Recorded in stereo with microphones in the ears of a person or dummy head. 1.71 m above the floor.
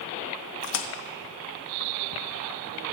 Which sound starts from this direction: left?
A splash, at 0.6 s.